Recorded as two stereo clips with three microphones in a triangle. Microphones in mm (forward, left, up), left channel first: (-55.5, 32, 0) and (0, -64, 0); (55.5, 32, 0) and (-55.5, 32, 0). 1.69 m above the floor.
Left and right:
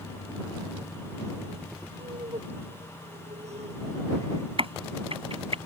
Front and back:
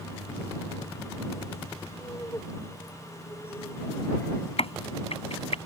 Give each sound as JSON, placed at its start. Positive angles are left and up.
{"t": 2.0, "sound": "laughter", "azimuth_deg": -60}
{"t": 4.6, "sound": "a crack", "azimuth_deg": -25}